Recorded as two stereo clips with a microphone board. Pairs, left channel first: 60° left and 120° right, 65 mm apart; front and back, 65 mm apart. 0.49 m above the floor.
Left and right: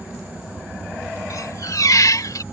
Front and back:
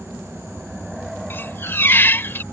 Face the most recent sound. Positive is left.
turn(degrees=50)